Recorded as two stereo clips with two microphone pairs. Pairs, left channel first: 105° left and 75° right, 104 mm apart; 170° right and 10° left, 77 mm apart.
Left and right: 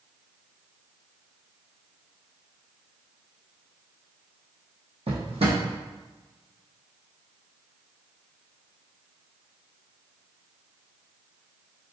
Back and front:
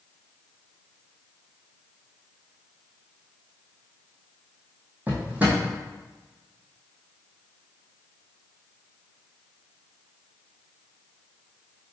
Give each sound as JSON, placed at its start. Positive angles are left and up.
{"t": 5.1, "sound": "a drawer", "azimuth_deg": -60, "distance_m": 1.6}